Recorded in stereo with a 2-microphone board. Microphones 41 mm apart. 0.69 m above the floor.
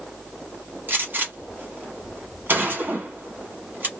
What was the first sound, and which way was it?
A gunshot, 50° right (ahead or behind).